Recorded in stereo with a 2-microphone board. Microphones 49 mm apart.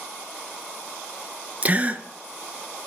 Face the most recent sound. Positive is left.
turn(degrees=-30)  # may be behind; listen again after turning